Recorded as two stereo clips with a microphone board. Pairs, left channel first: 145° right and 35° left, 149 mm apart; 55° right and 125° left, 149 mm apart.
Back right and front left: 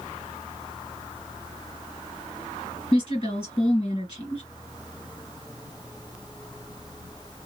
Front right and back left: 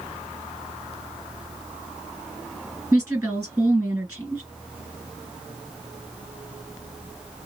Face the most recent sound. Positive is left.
turn(degrees=-175)